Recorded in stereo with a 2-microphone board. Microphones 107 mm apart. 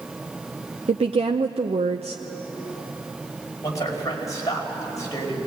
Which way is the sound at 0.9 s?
70° right (ahead or behind).